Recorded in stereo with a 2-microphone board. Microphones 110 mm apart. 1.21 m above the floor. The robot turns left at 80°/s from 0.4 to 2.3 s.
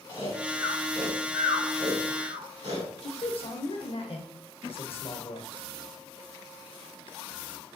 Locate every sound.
0.1 s snoring: 50° left (ahead or behind), 2.5 m; by 2.9 s 75° right (ahead or behind), 2.5 m
3.0 s a man speaking: 60° left (ahead or behind), 0.8 m